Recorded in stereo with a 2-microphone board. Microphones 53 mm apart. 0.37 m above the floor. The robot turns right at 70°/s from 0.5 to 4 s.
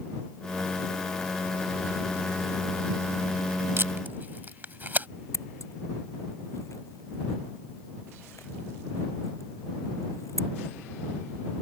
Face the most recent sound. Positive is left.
turn(degrees=65)  # may be behind; listen again after turning